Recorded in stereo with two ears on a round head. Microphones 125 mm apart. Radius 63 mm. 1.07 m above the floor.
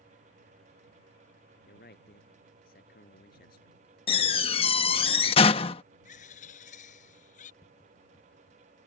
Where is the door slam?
40° left (ahead or behind).